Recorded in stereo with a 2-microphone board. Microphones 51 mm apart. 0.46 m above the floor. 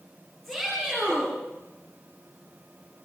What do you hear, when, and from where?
0.4 s a shout: centre (ahead or behind), 10 m